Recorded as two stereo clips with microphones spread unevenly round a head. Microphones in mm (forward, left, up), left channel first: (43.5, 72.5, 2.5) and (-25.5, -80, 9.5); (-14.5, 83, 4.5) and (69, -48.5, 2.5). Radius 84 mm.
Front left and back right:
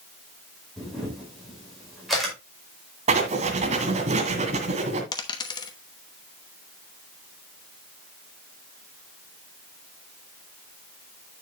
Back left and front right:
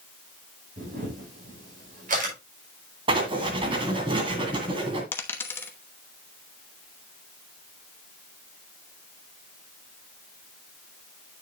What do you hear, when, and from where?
0.8 s a camera shutter: 25° right, 5 m
3.1 s writing: 105° right, 1.9 m
5.1 s a dropped coin: 75° left, 0.9 m